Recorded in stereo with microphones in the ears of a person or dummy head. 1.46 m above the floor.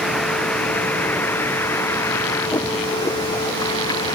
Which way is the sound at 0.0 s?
5° left (ahead or behind).